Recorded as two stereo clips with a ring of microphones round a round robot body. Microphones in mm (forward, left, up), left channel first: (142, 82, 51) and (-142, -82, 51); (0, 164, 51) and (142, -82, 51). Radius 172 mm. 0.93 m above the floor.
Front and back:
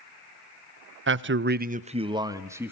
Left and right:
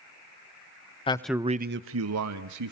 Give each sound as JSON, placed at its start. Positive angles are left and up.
{"t": 1.1, "sound": "a man speaking", "azimuth_deg": 180, "distance_m": 0.9}